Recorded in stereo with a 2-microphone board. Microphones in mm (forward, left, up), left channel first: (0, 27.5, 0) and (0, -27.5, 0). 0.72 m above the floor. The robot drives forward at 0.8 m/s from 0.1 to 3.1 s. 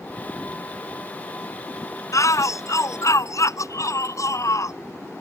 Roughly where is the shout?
Left.